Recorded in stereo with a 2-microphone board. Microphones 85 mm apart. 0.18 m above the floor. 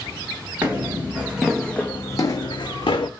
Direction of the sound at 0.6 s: 25° right (ahead or behind).